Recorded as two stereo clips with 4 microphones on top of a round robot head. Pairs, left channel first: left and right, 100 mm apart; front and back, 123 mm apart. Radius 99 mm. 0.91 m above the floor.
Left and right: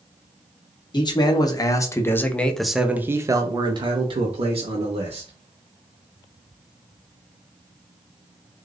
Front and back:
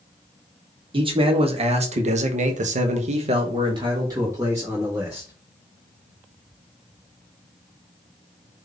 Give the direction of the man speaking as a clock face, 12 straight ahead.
8 o'clock.